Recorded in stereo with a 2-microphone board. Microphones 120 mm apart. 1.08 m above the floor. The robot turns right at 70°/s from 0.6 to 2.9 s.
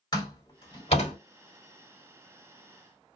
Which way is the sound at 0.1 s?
40° left (ahead or behind).